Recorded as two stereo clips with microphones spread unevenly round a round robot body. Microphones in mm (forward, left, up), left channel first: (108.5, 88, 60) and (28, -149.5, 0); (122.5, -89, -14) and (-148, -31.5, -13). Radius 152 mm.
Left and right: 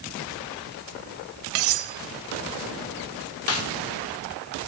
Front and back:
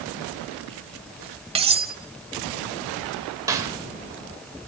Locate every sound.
1.6 s cutlery clinking: 120° right, 1.2 m
3.5 s a snare drum: 95° left, 1.8 m